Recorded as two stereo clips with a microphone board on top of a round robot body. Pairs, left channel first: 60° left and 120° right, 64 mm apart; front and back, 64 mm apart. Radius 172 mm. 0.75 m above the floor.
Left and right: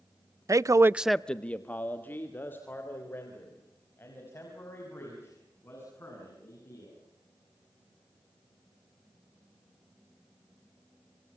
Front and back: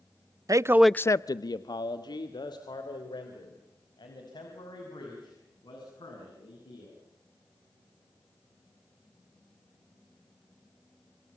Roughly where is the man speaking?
Behind right.